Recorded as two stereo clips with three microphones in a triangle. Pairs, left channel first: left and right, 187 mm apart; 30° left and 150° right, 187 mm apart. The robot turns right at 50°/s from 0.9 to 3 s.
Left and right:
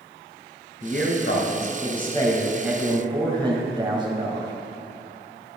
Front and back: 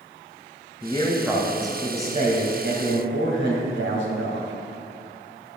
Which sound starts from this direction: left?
A man speaking, at 0.8 s.